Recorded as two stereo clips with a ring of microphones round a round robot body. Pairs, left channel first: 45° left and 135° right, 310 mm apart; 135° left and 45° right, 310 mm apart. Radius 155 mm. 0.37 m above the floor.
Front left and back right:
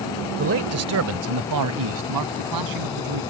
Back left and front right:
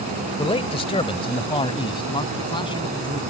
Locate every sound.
0.4 s a man speaking: 160° right; by 3.2 s 150° right